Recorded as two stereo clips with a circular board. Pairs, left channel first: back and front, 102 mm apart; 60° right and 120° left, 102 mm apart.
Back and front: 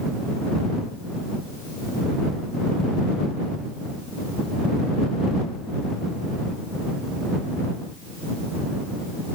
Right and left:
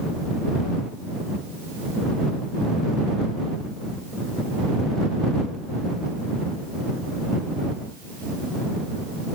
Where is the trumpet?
No trumpet in this recording.